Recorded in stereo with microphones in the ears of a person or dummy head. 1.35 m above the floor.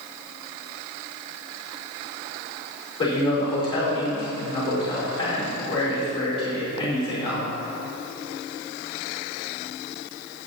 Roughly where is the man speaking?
Left.